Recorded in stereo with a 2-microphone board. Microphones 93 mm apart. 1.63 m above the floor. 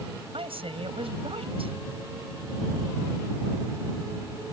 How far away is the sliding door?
No sliding door in this recording.